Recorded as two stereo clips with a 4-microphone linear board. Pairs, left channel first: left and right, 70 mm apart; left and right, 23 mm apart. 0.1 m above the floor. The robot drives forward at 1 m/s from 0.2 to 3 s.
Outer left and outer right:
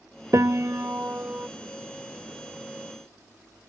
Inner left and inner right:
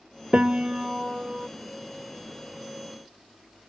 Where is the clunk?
I don't hear a clunk.